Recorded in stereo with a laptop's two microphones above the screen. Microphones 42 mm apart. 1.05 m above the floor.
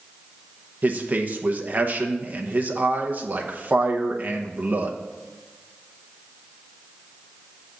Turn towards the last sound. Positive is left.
turn(degrees=-50)  # may be behind; listen again after turning